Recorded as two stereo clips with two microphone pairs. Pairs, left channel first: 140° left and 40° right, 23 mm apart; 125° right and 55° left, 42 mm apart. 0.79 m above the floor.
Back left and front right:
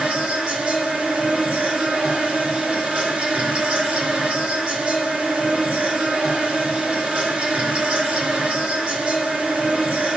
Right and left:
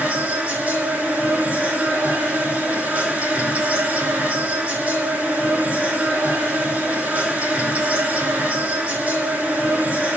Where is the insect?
5° right, 3.5 m.